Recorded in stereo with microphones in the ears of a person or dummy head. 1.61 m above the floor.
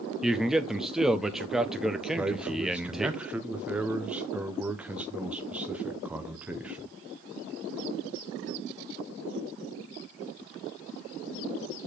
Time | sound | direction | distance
0.2 | a man speaking | 5° right (ahead or behind) | 0.5 m
2.2 | a man speaking | 5° right (ahead or behind) | 0.7 m